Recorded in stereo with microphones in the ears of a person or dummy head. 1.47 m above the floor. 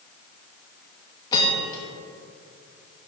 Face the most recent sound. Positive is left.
turn(degrees=25)  # may be behind; listen again after turning